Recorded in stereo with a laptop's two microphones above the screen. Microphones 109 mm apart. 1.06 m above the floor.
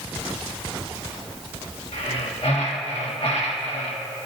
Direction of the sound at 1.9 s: 65° left (ahead or behind).